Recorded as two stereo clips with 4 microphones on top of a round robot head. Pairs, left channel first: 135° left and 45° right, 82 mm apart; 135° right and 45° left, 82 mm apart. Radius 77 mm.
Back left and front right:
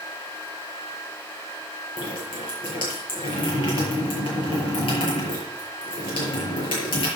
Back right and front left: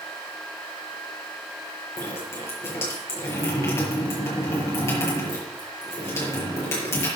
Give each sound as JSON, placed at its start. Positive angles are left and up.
{"t": 2.0, "sound": "dripping", "azimuth_deg": 165, "distance_m": 6.5}